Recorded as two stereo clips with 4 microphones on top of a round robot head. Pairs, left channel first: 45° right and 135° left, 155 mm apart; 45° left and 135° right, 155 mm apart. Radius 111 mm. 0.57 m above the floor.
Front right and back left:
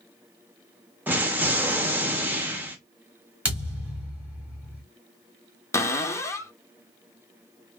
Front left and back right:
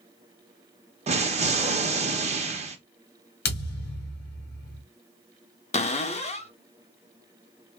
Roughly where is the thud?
Ahead left.